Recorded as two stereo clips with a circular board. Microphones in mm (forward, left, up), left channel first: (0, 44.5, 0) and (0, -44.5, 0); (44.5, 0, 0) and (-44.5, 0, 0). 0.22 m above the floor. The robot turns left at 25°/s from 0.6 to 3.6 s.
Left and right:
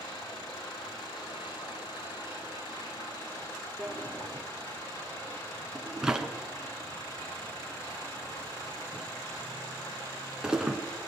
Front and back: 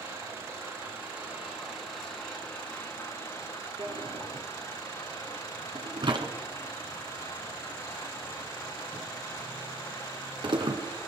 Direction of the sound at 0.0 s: 120° left.